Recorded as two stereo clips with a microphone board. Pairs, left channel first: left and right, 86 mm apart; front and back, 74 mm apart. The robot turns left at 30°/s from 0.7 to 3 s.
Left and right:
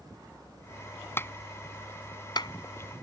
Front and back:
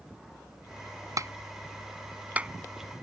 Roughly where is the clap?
Behind left.